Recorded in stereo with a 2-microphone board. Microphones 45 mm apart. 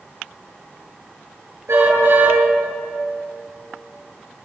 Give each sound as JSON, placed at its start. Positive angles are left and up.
{"t": 1.7, "sound": "a car horn", "side_deg": -75, "distance_m": 9.5}